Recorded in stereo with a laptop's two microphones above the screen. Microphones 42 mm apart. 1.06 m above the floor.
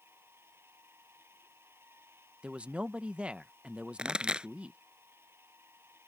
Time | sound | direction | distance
0.0 | a machine running | 90° right | ?
2.4 | a man speaking | 30° right (ahead or behind) | ?
4.0 | a pop | 20° right (ahead or behind) | ?